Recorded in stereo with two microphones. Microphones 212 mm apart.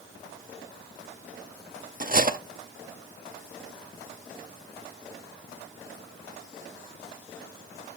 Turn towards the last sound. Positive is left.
turn(degrees=-40)  # may be behind; listen again after turning